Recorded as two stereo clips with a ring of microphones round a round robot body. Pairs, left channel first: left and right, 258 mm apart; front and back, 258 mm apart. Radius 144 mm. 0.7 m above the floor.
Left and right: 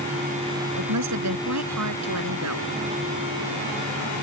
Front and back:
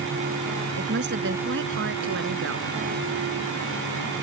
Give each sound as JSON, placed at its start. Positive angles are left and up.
{"t": 0.7, "sound": "a woman speaking", "azimuth_deg": -125}